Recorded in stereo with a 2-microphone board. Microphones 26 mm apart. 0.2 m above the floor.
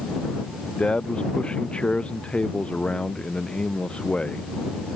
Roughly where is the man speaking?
Left.